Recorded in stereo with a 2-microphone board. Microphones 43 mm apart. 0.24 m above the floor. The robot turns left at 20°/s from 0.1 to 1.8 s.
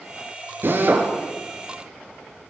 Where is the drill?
60° right (ahead or behind), 5.5 m; by 1.1 s 50° right (ahead or behind), 5.5 m.